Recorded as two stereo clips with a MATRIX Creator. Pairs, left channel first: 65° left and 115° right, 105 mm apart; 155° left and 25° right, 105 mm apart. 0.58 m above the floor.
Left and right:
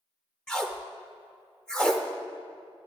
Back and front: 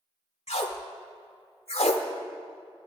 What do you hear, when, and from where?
0.5 s tape being pulled: 150° left, 0.8 m